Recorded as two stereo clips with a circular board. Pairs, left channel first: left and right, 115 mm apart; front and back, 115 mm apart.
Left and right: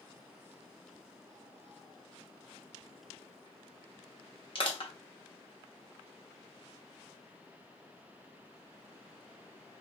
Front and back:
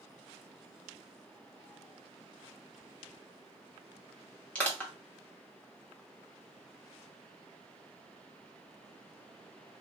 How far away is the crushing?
About 1.1 m.